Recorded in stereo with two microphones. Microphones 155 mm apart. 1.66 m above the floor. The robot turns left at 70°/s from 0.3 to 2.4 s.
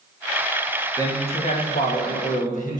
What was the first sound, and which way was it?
A man speaking, 160° left.